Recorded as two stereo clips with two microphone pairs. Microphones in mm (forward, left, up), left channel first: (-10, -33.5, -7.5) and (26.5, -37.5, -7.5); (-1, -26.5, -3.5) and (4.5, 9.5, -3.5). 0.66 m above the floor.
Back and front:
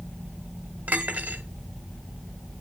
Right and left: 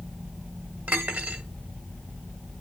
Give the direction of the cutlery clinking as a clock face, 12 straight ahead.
11 o'clock.